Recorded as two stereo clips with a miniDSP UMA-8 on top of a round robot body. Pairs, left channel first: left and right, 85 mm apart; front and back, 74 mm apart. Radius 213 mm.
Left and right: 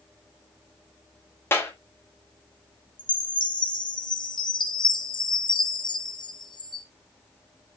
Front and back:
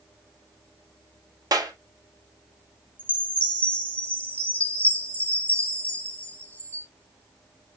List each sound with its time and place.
1.5 s a clap: 150° left, 2.5 m
3.0 s a chime: 70° left, 1.8 m